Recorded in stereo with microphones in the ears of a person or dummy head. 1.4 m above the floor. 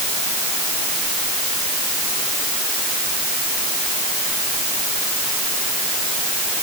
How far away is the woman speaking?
No woman speaking in this recording.